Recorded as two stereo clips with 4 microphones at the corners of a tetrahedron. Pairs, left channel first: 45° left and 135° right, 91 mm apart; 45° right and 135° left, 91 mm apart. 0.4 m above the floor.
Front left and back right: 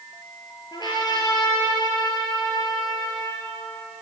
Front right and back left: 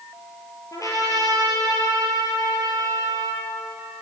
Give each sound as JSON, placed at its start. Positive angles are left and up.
{"t": 0.7, "sound": "a trumpet", "azimuth_deg": 5, "distance_m": 6.0}